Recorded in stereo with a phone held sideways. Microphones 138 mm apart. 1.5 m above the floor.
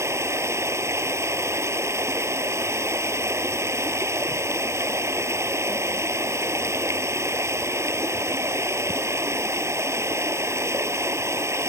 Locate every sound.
0.0 s running water: 20° right (ahead or behind)